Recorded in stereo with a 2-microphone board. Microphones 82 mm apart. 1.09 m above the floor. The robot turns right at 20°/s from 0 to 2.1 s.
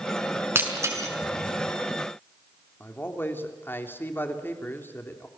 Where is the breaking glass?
30° right (ahead or behind), 6 m; by 1.1 s 40° right (ahead or behind), 6 m.